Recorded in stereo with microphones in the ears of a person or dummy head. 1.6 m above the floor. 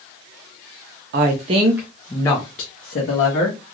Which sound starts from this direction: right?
A woman speaking, at 1.1 s.